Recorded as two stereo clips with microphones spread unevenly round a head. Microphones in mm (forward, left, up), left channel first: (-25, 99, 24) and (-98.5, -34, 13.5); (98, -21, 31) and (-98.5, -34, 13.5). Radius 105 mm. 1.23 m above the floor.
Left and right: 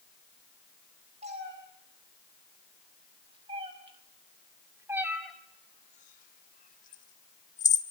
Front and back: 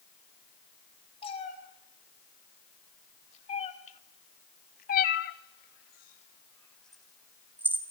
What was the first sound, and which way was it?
A cat meowing, 55° right.